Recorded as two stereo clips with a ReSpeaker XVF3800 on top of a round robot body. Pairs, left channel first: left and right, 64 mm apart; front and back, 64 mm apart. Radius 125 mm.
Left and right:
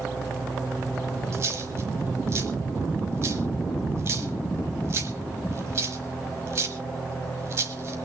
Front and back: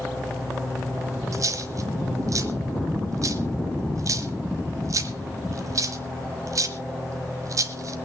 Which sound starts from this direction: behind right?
A dropped coin, at 1.3 s.